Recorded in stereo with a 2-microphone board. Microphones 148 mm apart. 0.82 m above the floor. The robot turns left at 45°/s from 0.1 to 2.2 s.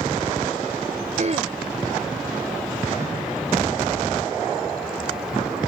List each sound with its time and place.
1.2 s throat clearing: 55° right (ahead or behind); by 1.5 s 40° right (ahead or behind)